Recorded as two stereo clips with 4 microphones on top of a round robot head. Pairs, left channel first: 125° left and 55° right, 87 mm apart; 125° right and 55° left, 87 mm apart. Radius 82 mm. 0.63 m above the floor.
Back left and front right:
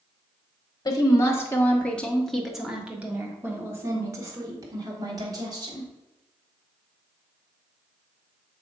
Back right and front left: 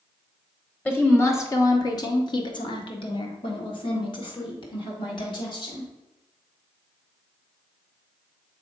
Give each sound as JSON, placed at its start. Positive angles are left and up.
{"t": 0.8, "sound": "a woman speaking", "azimuth_deg": 170, "distance_m": 1.4}